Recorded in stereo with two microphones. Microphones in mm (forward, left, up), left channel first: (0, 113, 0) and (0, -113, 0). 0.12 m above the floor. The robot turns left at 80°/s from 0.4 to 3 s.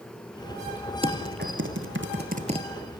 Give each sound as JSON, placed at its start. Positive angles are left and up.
{"t": 1.0, "sound": "typing on a keyboard", "side_deg": -25, "distance_m": 2.5}